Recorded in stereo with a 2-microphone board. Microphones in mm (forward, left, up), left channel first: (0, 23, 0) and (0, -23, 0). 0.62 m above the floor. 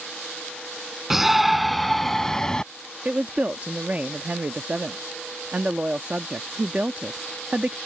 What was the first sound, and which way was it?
A shout, 10° right (ahead or behind).